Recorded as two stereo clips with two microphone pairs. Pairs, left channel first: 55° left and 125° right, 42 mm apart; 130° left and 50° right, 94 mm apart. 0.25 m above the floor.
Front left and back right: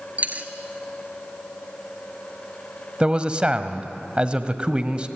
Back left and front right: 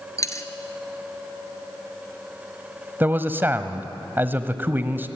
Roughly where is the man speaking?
Right.